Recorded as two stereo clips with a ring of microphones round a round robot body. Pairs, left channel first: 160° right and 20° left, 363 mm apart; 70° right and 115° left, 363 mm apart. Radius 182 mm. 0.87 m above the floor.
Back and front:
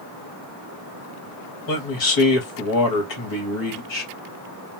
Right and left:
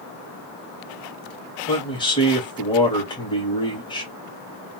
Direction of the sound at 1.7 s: 140° right.